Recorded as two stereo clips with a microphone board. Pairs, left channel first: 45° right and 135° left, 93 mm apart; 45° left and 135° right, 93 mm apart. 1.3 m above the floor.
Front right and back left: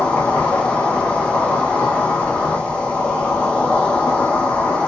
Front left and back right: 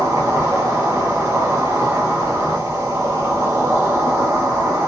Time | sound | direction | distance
0.0 | an insect | 110° right | 0.9 m